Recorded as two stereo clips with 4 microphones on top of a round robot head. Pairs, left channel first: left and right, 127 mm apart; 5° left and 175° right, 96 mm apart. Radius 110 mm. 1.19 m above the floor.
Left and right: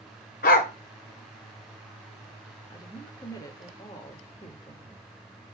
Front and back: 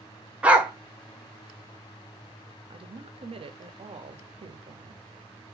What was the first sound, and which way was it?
A dog barking, 105° left.